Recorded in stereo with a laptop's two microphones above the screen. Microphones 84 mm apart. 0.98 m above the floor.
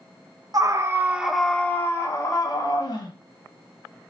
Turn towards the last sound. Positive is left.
turn(degrees=55)  # may be behind; listen again after turning